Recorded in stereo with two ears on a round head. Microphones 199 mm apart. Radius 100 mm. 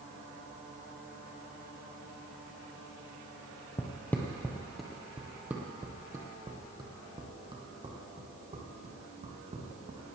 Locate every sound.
3.8 s footsteps: 15° left (ahead or behind), 1.9 m; by 10.0 s 35° right (ahead or behind), 4.5 m